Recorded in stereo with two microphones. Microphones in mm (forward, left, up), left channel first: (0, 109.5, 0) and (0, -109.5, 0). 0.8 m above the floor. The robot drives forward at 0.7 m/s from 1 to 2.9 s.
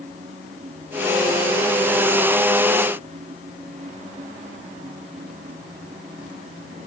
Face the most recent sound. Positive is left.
No sound to turn to.